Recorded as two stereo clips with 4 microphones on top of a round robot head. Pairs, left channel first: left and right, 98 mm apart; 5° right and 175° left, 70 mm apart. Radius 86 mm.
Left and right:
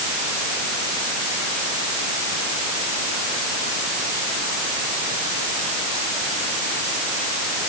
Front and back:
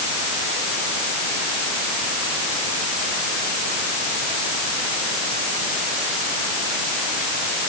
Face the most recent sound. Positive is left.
No sound to turn to.